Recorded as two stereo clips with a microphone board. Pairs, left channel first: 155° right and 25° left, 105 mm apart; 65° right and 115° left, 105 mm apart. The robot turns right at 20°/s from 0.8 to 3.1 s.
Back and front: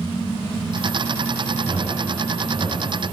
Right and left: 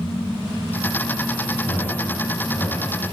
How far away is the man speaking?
About 2.5 m.